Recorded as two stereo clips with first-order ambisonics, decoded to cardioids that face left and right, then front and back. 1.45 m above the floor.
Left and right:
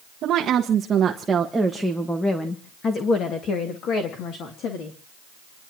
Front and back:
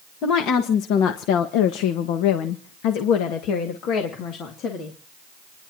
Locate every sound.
0.2 s a woman speaking: 40° right, 1.6 m; by 5.0 s 50° left, 3 m